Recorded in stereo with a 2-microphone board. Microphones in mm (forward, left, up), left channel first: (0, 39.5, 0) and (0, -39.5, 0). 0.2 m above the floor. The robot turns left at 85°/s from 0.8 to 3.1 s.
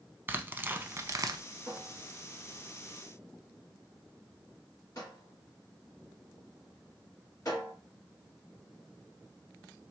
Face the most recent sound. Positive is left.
turn(degrees=45)  # may be behind; listen again after turning